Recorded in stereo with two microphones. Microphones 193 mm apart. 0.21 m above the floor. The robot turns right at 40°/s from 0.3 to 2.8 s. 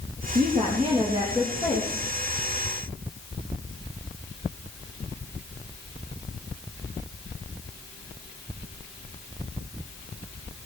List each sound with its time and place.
0.3 s a woman speaking: 55° right, 4 m; by 2.1 s 15° left, 4 m